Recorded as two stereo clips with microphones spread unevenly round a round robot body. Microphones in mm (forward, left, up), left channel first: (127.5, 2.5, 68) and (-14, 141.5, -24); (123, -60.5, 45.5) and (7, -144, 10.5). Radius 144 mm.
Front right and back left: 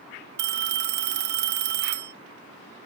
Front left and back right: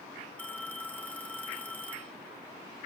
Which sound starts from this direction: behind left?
A phone ringing, at 0.4 s.